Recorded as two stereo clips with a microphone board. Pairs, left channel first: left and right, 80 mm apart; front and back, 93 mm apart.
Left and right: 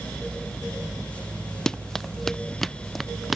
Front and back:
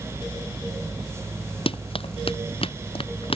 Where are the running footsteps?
5° left; by 3.4 s straight ahead.